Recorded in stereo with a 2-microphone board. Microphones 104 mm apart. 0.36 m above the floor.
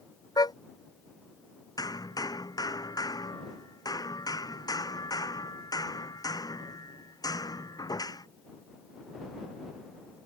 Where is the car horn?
40° left (ahead or behind).